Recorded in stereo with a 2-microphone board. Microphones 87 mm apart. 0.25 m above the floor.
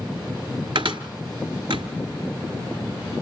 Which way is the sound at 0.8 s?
75° right (ahead or behind).